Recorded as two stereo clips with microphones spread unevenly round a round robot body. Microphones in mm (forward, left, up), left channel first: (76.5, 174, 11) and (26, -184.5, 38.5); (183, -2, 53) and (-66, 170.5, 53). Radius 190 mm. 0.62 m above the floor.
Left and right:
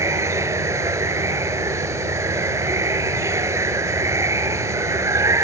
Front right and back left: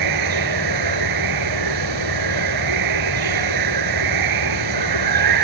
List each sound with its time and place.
0.0 s running water: straight behind